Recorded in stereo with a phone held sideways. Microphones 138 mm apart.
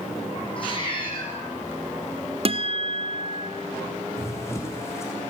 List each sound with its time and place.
0.6 s a cat meowing: 40° left (ahead or behind), 7 m
2.5 s a guitar: 45° right (ahead or behind), 1.2 m
4.2 s running footsteps: 20° left (ahead or behind), 4.5 m